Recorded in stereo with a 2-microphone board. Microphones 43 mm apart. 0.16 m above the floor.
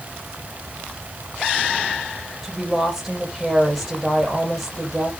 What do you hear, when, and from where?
2.4 s a woman speaking: centre (ahead or behind), 4.5 m